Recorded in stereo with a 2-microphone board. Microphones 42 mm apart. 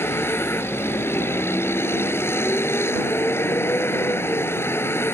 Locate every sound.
0.0 s a vehicle: 75° left (ahead or behind)